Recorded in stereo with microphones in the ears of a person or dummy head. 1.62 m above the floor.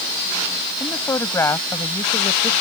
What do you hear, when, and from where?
0.8 s a woman speaking: 15° left (ahead or behind); by 2.5 s 20° left (ahead or behind)